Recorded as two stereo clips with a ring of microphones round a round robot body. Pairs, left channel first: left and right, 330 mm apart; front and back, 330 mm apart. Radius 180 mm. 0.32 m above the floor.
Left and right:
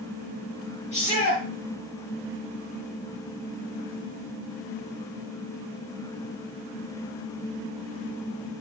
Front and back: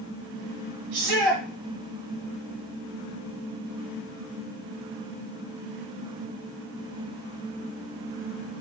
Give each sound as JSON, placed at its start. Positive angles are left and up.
{"t": 0.9, "sound": "a shout", "azimuth_deg": 160, "distance_m": 4.0}